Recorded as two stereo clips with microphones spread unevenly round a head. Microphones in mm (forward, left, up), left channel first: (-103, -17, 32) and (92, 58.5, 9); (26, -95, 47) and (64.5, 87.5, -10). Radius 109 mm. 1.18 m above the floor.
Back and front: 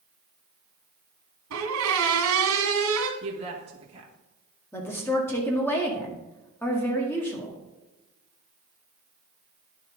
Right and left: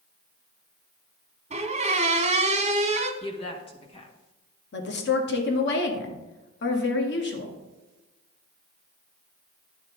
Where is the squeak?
15° left, 1.7 m.